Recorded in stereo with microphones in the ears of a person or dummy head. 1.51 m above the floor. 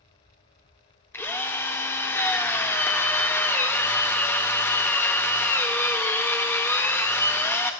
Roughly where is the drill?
Centre.